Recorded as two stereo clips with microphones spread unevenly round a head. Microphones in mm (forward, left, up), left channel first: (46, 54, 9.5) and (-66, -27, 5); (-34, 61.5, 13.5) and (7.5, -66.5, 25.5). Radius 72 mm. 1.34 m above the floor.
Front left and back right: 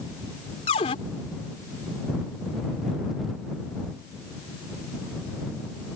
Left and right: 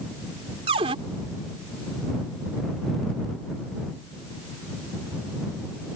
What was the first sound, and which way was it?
A cupboard door, 20° right.